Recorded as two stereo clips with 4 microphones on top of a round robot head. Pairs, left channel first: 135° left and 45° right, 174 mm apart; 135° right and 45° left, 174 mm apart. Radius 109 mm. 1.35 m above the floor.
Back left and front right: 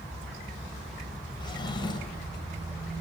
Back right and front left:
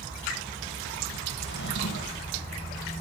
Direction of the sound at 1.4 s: 160° right.